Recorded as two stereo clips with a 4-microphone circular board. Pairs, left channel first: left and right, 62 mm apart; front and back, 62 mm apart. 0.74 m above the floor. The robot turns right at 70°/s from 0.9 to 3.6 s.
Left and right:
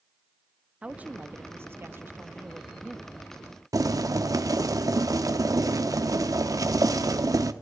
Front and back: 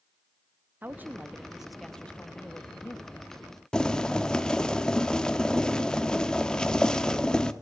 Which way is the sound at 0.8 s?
145° right.